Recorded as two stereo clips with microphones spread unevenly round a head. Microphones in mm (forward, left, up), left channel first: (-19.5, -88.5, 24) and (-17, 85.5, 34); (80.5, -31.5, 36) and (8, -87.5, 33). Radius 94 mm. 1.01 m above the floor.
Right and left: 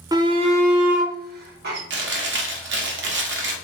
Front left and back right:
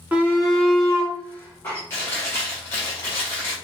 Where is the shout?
155° left, 0.8 m; by 1.8 s 110° left, 1.4 m.